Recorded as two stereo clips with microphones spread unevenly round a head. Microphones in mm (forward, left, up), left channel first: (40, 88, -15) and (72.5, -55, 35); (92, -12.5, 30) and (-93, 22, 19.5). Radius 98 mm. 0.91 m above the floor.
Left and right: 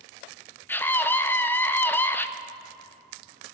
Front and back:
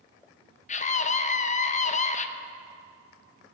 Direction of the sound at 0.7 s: 40° left.